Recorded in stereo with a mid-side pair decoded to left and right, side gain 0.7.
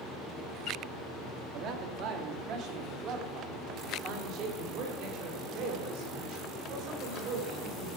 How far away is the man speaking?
About 2 m.